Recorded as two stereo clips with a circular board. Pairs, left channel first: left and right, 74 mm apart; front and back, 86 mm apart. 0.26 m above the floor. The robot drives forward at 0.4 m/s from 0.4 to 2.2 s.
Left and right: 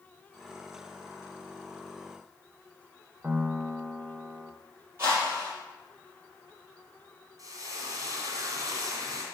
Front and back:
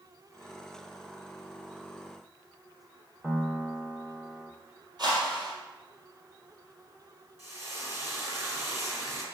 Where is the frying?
125° right, 2.5 m.